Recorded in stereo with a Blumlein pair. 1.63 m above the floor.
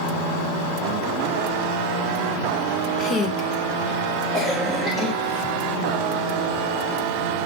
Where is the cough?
10° left, 1.4 m.